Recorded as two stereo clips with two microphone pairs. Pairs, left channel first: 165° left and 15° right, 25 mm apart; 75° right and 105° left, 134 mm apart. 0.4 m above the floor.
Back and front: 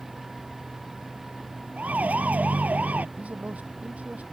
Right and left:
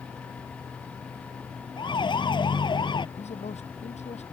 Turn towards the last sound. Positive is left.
turn(degrees=-40)